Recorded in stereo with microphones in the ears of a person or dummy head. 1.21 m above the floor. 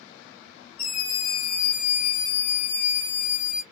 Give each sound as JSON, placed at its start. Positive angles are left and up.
{"t": 0.8, "sound": "a scream", "side_deg": 15, "distance_m": 1.0}